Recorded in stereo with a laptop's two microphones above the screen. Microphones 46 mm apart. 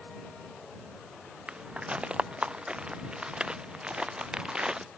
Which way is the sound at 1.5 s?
25° right (ahead or behind).